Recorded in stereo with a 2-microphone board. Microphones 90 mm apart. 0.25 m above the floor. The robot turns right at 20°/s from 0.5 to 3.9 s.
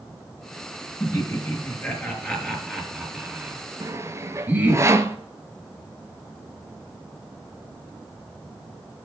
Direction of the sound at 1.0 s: 35° left (ahead or behind).